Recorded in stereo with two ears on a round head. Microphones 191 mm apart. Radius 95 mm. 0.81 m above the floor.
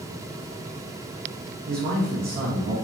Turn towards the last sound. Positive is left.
turn(degrees=-45)  # may be behind; listen again after turning